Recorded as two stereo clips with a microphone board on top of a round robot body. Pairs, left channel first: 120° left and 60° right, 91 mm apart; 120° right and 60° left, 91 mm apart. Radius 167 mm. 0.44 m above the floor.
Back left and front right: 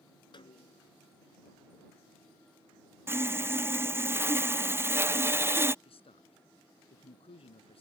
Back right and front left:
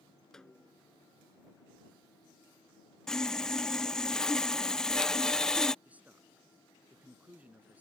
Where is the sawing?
45° right.